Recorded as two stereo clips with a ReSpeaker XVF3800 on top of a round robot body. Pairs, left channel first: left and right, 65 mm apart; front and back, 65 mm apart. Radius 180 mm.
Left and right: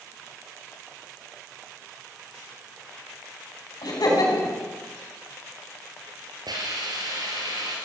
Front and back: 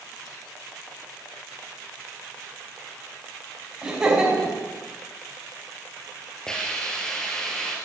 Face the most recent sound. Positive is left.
turn(degrees=-80)